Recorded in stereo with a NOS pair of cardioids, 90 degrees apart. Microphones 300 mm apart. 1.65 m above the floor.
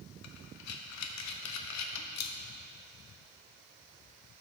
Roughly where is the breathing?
Ahead left.